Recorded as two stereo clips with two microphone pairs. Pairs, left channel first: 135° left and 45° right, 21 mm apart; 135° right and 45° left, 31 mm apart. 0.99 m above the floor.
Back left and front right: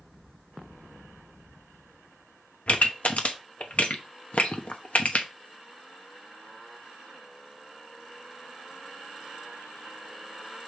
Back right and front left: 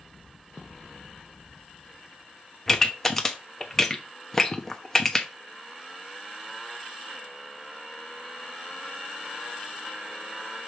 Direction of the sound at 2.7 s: 145° left.